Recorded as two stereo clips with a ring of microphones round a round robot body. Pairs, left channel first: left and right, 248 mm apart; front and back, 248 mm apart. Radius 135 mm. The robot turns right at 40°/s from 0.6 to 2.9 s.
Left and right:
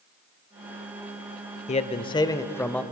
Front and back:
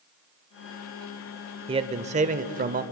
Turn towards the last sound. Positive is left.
turn(degrees=175)